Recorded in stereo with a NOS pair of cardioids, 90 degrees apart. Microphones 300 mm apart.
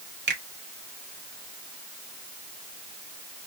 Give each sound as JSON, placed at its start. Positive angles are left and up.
{"t": 0.3, "sound": "a finger snap", "azimuth_deg": -40, "distance_m": 1.5}